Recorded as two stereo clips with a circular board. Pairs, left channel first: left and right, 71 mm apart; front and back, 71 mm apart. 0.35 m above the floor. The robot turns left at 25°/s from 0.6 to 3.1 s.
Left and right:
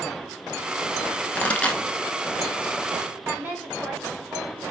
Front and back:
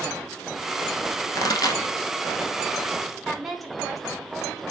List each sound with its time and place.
1.4 s a pop: 25° left, 0.7 m; by 1.8 s 10° left, 0.7 m
3.2 s a woman speaking: 95° right, 1.2 m